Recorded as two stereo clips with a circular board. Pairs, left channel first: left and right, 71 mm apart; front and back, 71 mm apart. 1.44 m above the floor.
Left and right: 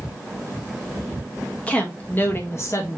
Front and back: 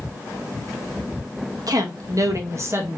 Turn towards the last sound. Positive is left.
turn(degrees=125)